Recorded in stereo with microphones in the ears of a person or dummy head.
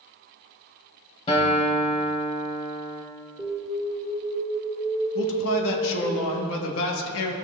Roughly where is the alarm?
Centre.